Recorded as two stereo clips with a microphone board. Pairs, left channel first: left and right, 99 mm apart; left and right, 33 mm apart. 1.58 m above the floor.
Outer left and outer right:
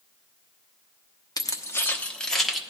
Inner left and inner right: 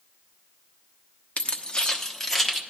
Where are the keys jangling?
40° left (ahead or behind), 0.8 m; by 2.6 s centre (ahead or behind), 1.0 m.